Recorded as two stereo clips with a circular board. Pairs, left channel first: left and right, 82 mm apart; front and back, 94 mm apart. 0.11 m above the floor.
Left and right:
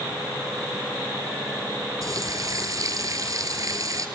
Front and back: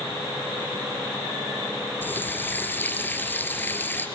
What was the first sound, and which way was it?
A running tap, 65° right.